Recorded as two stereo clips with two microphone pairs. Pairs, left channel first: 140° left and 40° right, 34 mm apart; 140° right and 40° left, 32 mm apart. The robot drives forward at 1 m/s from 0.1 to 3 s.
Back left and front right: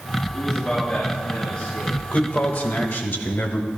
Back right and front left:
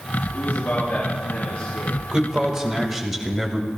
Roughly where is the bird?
I don't hear a bird.